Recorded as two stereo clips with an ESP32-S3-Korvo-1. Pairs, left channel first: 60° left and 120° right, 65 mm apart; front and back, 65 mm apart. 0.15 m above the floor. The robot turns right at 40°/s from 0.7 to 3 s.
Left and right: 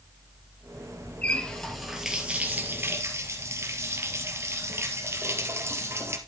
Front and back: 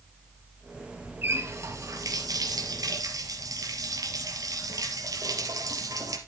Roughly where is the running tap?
Behind left.